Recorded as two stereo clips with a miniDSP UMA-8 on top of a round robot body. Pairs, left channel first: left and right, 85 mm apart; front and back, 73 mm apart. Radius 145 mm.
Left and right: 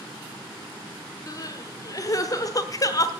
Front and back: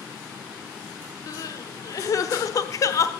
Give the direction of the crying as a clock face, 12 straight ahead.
11 o'clock.